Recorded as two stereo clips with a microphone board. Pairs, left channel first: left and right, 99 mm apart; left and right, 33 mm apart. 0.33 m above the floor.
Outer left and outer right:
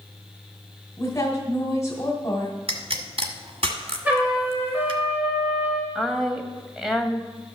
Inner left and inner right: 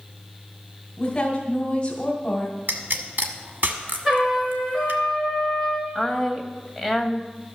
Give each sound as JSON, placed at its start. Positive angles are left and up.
{"t": 1.0, "sound": "a woman speaking", "side_deg": 30, "distance_m": 1.7}
{"t": 2.7, "sound": "a pop", "side_deg": -70, "distance_m": 1.2}
{"t": 4.0, "sound": "a trumpet", "side_deg": -20, "distance_m": 4.0}
{"t": 6.0, "sound": "a woman speaking", "side_deg": -5, "distance_m": 1.5}